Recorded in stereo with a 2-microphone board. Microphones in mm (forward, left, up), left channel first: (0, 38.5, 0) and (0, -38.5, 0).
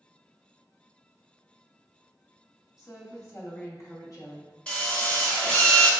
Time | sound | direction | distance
2.8 | a woman speaking | 45° left (ahead or behind) | 1.0 m
4.7 | a drill | 15° left (ahead or behind) | 0.8 m